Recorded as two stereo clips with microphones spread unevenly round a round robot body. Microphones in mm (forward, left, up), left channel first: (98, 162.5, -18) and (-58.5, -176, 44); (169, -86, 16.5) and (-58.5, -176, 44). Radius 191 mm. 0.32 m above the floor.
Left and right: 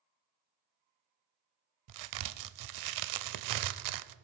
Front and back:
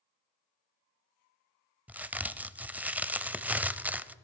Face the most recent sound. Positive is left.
turn(degrees=-70)